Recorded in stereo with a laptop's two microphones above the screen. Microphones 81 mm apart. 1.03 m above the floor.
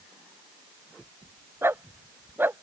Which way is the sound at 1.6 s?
30° right (ahead or behind).